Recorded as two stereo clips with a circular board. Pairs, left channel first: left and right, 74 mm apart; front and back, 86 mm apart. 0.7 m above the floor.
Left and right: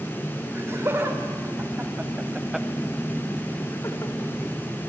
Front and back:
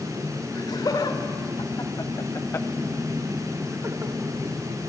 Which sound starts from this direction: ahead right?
Laughter, at 0.6 s.